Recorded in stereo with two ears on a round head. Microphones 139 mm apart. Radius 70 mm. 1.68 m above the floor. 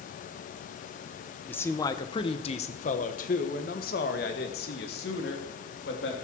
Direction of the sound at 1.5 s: 15° left (ahead or behind).